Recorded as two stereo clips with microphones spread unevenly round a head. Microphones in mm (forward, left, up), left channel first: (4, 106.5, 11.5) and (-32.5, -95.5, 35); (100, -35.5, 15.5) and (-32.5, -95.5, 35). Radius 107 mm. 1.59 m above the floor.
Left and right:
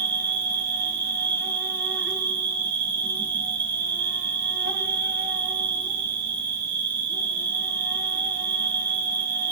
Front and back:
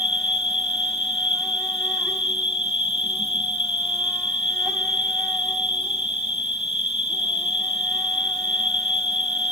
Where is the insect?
75° right, 1.1 m.